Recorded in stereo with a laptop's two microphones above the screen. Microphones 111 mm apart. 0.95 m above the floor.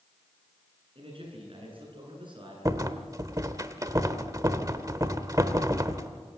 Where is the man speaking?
55° right (ahead or behind), 9.5 m; by 2.5 s 45° right (ahead or behind), 10.5 m.